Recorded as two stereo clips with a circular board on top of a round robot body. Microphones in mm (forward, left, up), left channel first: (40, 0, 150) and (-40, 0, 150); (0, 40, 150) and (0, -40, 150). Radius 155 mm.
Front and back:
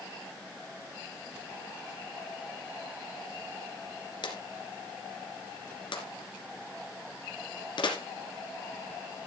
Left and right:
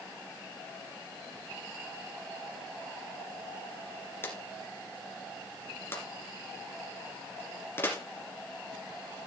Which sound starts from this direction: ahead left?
A drawer, at 4.2 s.